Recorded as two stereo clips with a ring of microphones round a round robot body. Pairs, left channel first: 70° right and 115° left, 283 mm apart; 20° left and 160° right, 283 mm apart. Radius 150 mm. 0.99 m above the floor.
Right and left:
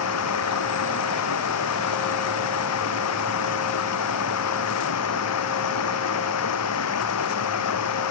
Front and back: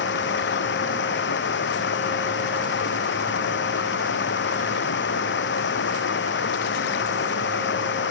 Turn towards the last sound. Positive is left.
turn(degrees=-30)